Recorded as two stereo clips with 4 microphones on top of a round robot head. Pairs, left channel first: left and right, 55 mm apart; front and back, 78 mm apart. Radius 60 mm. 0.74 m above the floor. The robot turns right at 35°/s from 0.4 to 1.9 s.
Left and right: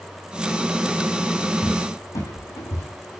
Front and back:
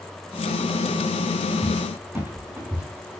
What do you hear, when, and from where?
1.6 s a cupboard door: 100° left, 7 m; by 3.2 s 110° left, 7 m